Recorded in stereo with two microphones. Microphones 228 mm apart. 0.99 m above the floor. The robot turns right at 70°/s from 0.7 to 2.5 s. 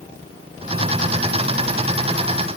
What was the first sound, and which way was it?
Only background noise.